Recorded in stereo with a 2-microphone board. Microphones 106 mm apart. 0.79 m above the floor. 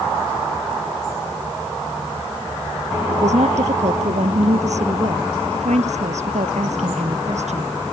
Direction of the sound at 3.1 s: 85° right.